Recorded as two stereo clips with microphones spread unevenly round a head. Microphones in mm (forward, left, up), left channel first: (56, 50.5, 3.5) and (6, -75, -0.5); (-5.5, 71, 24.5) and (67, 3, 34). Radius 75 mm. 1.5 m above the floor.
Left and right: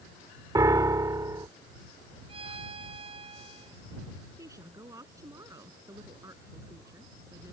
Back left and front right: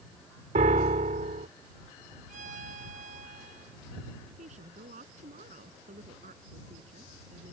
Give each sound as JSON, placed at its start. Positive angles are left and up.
{"t": 0.6, "sound": "a piano", "azimuth_deg": -45}
{"t": 2.3, "sound": "a violin", "azimuth_deg": -60}
{"t": 4.4, "sound": "a woman speaking", "azimuth_deg": -45}